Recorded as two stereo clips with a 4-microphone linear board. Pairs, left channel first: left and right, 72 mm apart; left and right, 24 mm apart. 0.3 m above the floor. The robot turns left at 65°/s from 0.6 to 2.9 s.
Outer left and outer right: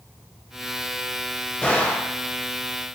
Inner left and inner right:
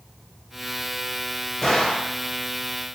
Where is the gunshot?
150° left, 0.6 m; by 2.1 s 115° left, 0.6 m.